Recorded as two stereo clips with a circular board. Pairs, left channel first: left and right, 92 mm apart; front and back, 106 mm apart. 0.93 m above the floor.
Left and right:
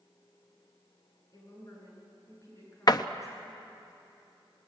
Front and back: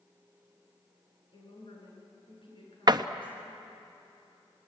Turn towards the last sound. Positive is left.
turn(degrees=130)